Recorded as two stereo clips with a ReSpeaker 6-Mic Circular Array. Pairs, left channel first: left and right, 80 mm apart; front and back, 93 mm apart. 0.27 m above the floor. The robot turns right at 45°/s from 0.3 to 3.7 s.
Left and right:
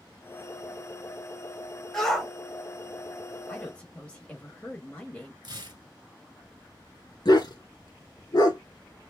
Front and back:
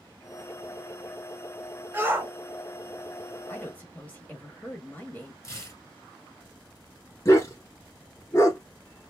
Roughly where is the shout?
Behind.